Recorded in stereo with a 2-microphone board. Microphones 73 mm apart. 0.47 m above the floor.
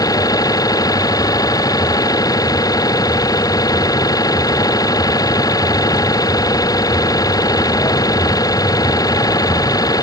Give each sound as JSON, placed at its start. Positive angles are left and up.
{"t": 0.0, "sound": "an engine running", "side_deg": 50}